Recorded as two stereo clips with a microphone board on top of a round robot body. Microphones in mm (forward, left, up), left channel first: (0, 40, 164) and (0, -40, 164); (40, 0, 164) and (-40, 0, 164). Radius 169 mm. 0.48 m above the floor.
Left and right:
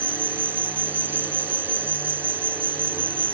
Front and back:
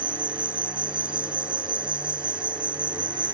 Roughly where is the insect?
Behind right.